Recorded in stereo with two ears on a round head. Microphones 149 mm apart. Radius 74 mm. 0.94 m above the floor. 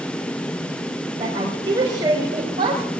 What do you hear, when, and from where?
1.2 s a woman speaking: 25° right (ahead or behind), 4 m; by 2.8 s 30° right (ahead or behind), 5 m